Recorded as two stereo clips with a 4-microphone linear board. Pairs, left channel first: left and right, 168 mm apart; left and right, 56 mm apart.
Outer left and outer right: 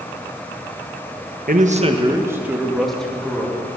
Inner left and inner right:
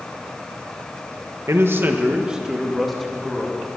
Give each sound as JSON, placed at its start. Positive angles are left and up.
{"t": 1.5, "sound": "a man speaking", "side_deg": -55, "distance_m": 1.3}